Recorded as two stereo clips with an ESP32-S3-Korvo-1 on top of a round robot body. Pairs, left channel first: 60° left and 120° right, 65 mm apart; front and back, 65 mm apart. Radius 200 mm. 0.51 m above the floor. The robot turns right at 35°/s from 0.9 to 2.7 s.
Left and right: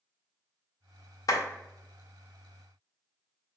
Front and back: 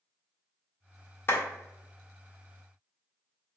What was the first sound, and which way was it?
A clap, 50° left.